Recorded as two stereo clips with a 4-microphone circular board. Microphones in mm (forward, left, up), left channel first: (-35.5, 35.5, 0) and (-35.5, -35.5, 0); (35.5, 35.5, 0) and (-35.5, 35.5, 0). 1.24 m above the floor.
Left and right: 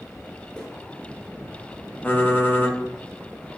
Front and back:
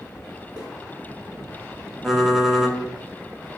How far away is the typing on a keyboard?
About 0.6 m.